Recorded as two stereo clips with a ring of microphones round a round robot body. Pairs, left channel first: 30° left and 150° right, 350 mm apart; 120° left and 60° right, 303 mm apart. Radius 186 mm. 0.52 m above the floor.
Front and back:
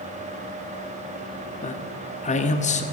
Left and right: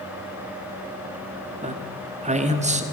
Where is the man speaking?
20° right, 1.2 m.